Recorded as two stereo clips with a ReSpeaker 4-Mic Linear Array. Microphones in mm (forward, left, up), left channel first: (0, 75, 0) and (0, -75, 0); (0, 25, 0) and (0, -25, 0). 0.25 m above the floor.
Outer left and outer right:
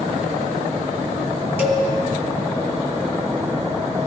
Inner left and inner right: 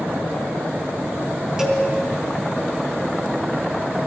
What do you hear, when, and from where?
1.6 s a cowbell: 15° right (ahead or behind), 1.8 m